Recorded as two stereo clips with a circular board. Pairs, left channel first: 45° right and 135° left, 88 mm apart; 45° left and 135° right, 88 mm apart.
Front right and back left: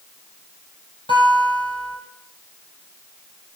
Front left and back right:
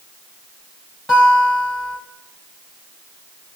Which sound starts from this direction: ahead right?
A guitar, at 1.1 s.